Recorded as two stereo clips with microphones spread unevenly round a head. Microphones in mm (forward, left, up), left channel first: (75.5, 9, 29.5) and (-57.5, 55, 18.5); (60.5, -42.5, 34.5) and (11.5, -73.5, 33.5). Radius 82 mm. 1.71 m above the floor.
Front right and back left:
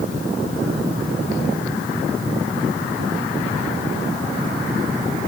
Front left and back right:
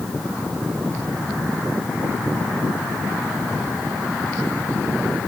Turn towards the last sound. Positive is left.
No sound to turn to.